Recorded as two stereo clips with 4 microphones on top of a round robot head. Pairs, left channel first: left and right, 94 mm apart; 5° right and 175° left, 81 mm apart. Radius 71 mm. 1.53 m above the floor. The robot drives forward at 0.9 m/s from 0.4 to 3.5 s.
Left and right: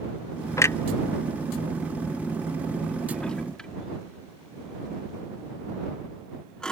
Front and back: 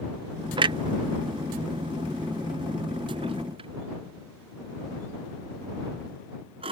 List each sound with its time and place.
0.6 s a clunk: 150° left; by 6.7 s 170° left